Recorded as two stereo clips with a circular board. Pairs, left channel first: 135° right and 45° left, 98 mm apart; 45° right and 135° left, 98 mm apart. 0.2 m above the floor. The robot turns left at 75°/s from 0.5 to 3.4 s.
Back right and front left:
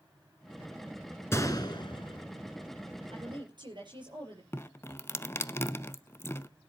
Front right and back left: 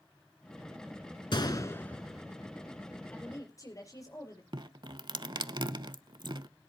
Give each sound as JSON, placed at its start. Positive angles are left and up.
{"t": 1.3, "sound": "a gunshot", "azimuth_deg": -75, "distance_m": 1.4}
{"t": 3.1, "sound": "a woman speaking", "azimuth_deg": 35, "distance_m": 5.5}
{"t": 4.5, "sound": "dripping", "azimuth_deg": 165, "distance_m": 0.5}